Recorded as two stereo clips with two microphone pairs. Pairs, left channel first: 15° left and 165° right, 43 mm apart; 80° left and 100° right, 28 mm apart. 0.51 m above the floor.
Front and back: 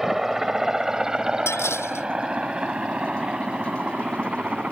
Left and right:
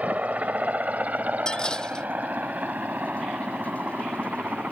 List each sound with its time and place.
0.0 s a helicopter: 85° right; by 4.7 s 110° right
1.5 s dishes clattering: 20° left